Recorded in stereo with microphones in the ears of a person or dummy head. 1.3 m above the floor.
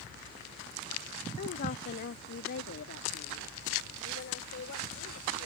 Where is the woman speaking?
50° left (ahead or behind); by 5.5 s 65° left (ahead or behind).